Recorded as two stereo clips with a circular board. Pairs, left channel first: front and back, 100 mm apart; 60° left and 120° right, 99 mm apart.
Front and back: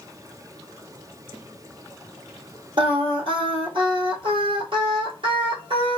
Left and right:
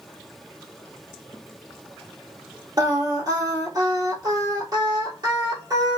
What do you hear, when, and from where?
2.8 s singing: 160° right, 1.0 m